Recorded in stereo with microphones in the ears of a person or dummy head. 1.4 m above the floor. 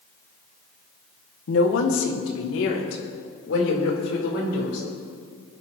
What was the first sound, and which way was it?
A woman speaking, 80° left.